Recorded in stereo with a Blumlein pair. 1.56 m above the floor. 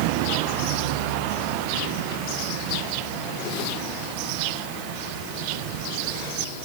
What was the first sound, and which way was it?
Only background noise.